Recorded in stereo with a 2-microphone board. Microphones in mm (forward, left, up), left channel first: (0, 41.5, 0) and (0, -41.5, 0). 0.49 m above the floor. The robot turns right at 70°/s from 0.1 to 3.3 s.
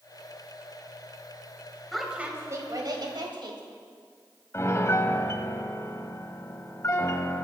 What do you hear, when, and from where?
1.9 s a woman speaking: 175° left, 2.5 m; by 3.6 s 85° right, 2.5 m
4.5 s a piano: 35° left (ahead or behind), 0.8 m